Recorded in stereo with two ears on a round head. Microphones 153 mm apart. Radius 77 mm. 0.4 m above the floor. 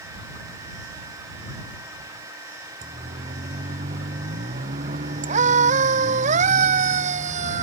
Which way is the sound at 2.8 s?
45° right (ahead or behind).